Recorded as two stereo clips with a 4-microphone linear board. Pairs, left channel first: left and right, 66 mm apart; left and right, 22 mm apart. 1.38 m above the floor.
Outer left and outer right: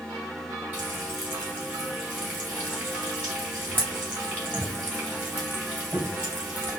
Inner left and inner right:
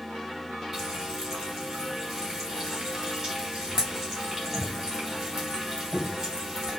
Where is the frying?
25° right (ahead or behind), 2.5 m.